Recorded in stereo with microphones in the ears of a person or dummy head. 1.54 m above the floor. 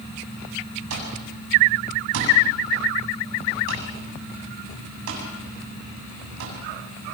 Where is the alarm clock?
80° right, 6.5 m.